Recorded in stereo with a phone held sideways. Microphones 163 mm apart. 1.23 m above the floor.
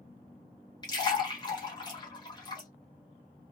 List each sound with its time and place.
0.8 s a splash: 25° left (ahead or behind), 1.2 m